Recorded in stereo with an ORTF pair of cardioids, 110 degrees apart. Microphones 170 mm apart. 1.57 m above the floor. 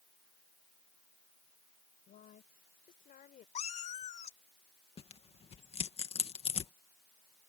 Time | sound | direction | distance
2.1 | a woman speaking | 55° left | ?
3.5 | a cat meowing | 45° left | ?
5.0 | tearing paper | 35° left | ?